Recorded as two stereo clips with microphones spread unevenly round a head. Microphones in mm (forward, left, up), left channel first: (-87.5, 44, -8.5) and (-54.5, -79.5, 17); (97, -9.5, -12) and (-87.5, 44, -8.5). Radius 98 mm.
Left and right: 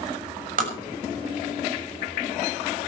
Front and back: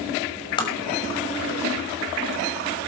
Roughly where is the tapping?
Right.